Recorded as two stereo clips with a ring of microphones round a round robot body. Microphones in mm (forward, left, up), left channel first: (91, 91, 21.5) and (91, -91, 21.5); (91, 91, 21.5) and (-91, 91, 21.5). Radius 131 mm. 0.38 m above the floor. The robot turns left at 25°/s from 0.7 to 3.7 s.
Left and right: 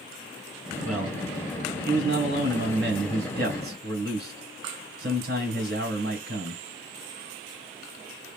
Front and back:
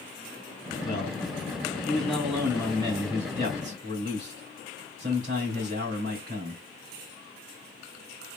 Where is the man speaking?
55° right, 2.5 m; by 6.6 s 130° right, 2.5 m.